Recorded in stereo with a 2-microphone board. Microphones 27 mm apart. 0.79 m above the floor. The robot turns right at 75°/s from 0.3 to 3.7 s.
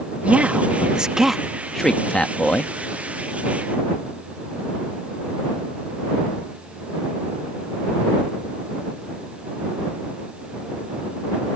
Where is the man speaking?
55° right (ahead or behind); by 2.7 s 55° left (ahead or behind).